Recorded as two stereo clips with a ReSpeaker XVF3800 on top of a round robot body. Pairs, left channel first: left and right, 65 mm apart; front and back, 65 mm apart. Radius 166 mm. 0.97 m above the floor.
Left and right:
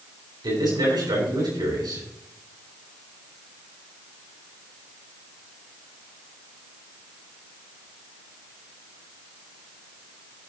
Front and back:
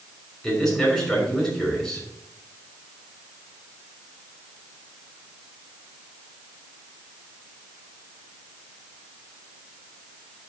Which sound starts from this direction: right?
A man speaking, at 0.4 s.